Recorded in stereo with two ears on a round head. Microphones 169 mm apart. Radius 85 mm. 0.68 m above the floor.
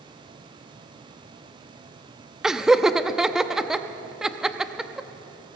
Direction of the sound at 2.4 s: 5° right (ahead or behind).